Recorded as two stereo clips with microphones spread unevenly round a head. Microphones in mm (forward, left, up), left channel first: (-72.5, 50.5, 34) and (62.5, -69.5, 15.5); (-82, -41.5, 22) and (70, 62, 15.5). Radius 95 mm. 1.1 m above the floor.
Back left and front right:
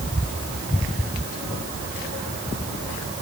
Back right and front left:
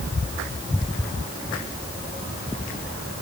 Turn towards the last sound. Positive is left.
No sound to turn to.